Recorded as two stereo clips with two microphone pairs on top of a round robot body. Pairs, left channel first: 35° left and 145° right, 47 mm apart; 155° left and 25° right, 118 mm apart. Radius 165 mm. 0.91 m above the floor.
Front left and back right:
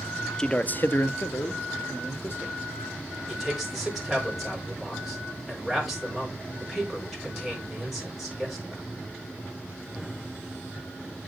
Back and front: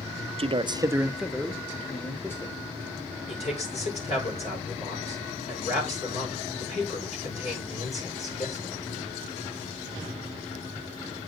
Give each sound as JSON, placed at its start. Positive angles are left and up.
{"t": 0.4, "sound": "a man speaking", "azimuth_deg": -35, "distance_m": 0.7}
{"t": 3.3, "sound": "a man speaking", "azimuth_deg": 130, "distance_m": 4.5}